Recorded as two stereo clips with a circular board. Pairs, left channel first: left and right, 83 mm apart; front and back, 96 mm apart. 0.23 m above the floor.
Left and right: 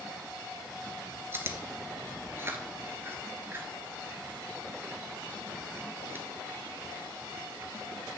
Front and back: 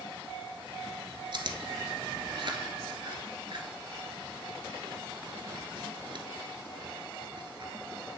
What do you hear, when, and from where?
1.3 s chewing: 150° right, 1.0 m